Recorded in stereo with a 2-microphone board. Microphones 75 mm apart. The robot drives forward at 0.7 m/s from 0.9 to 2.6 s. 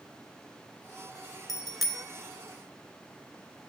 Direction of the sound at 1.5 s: Centre (ahead or behind).